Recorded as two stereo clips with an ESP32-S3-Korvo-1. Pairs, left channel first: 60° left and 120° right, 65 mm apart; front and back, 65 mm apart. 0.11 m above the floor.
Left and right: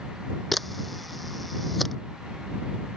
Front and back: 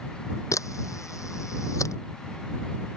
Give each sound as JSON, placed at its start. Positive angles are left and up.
{"t": 0.5, "sound": "a camera shutter", "azimuth_deg": -30}